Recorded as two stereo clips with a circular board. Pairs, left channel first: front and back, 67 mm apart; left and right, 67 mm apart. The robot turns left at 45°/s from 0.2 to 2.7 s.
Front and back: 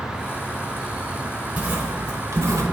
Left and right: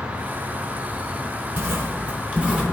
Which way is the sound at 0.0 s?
85° right.